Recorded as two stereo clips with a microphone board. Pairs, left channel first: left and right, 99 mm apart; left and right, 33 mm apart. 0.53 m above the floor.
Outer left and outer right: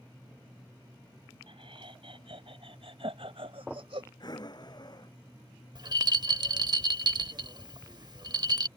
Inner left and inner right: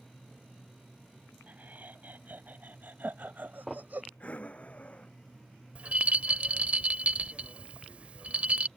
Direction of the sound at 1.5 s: 65° right (ahead or behind).